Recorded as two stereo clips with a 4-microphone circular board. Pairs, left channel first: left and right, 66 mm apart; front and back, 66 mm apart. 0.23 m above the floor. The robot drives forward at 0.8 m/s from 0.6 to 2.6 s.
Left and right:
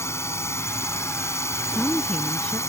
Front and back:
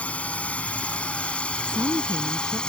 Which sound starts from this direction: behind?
A woman speaking, at 1.7 s.